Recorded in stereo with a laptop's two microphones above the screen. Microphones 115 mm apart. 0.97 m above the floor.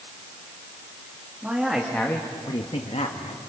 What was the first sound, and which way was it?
A man speaking, 10° right (ahead or behind).